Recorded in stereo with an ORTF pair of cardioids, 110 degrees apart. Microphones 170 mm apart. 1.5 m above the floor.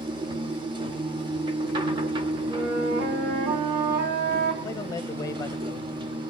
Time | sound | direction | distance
0.0 | a machine running | 30° right | 3.5 m
2.5 | a flute | 65° right | 7 m
4.6 | a man speaking | 20° left | 1.7 m